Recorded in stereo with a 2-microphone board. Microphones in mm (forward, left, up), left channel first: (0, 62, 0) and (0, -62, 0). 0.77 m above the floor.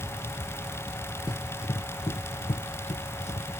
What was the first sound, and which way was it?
Running footsteps, 40° left (ahead or behind).